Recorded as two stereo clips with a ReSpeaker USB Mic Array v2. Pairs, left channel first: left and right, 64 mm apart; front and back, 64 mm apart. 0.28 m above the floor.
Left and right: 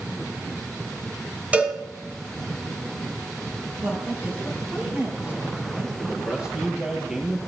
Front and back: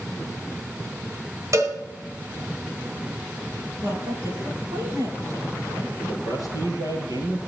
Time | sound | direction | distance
1.5 | a cowbell | 155° right | 1.9 m
3.8 | a woman speaking | 155° right | 5.5 m
6.0 | a man speaking | 165° right | 5 m